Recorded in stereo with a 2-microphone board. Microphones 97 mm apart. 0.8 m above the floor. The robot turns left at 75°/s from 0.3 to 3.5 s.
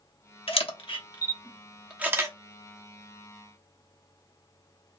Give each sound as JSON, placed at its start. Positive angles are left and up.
{"t": 0.5, "sound": "a camera shutter", "side_deg": 75, "distance_m": 0.8}